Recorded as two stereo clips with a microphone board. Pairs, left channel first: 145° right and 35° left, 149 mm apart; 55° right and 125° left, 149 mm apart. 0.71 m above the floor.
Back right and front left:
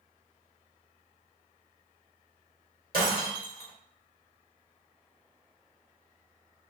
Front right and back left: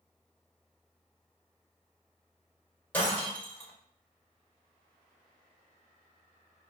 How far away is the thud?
No thud in this recording.